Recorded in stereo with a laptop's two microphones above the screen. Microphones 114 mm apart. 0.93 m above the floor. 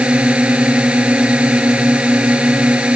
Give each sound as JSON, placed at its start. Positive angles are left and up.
{"t": 0.0, "sound": "a drone", "side_deg": -10}